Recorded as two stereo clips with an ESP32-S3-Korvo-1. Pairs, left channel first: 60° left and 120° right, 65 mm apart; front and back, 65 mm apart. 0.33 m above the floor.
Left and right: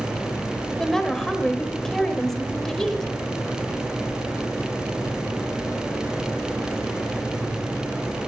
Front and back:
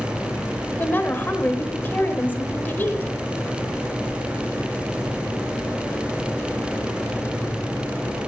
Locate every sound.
0.8 s a woman speaking: 20° right, 1.0 m